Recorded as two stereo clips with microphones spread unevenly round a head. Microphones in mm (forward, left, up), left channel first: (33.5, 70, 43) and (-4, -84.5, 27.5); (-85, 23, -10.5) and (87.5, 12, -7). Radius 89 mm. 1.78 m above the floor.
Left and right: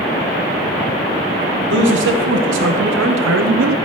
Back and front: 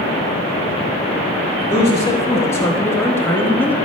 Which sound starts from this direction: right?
A man speaking, at 1.7 s.